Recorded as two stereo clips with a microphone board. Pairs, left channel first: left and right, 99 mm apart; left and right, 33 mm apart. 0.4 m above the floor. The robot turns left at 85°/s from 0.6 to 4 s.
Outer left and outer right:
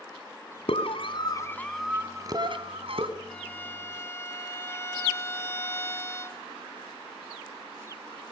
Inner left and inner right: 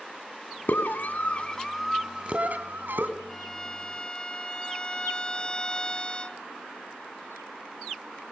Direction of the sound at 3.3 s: 10° left (ahead or behind).